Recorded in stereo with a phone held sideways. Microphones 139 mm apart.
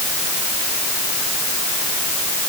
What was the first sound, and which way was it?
Only background noise.